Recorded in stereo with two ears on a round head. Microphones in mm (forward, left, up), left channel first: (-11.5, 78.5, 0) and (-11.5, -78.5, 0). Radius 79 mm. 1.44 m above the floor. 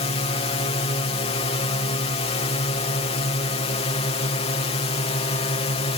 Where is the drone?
35° left (ahead or behind).